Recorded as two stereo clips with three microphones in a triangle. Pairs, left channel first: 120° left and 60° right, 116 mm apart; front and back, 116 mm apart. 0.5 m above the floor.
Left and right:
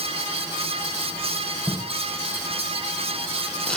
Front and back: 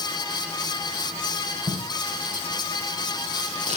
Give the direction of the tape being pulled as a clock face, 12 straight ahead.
5 o'clock.